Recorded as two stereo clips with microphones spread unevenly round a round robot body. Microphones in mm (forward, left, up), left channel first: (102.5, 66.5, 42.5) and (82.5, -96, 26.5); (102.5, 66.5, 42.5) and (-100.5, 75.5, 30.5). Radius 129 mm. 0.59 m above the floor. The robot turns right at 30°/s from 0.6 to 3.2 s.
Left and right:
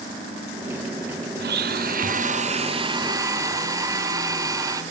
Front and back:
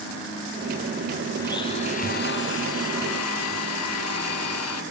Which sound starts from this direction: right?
A blender, at 1.4 s.